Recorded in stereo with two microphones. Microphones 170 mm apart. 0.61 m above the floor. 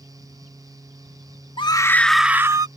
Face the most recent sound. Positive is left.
turn(degrees=-20)  # may be behind; listen again after turning